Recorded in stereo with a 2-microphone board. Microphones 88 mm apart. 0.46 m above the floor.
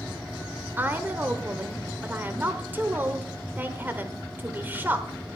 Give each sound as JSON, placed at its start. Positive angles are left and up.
{"t": 0.8, "sound": "a woman speaking", "side_deg": -20, "distance_m": 1.2}